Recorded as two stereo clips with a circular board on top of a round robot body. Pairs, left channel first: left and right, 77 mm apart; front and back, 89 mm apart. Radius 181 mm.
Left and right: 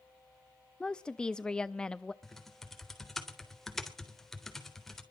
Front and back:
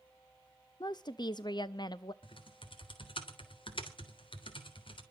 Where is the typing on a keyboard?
5° left, 3.5 m.